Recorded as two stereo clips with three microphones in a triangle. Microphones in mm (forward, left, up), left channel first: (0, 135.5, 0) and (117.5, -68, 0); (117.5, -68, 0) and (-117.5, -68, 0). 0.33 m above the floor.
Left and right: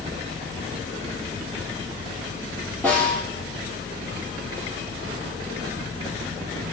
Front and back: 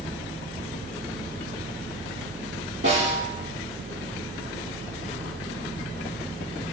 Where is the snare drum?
155° right, 6.5 m.